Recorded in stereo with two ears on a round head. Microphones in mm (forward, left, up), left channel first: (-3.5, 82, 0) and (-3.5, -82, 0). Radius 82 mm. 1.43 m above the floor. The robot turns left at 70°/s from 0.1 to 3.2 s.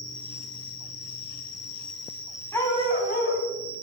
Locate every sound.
0.0 s an insect: 155° left, 2.5 m; by 3.8 s 60° right, 2.5 m
2.5 s a dog barking: 165° left, 2.5 m; by 3.5 s 120° left, 2.5 m